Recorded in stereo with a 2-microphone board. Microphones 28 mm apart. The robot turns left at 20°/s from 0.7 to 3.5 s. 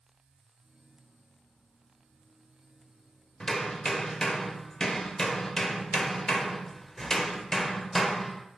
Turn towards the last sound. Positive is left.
turn(degrees=20)  # may be behind; listen again after turning